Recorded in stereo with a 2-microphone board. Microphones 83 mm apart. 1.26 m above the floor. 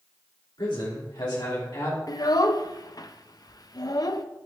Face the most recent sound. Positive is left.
turn(degrees=50)  # may be behind; listen again after turning